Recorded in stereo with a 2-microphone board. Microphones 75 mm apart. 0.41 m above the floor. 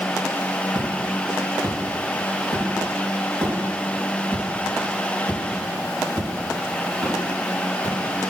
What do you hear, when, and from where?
0.8 s footsteps: 55° right (ahead or behind), 3.5 m; by 7.9 s 65° right (ahead or behind), 9.5 m